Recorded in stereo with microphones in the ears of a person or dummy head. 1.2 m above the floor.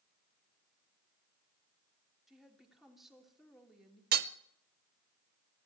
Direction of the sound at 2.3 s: 5° right (ahead or behind).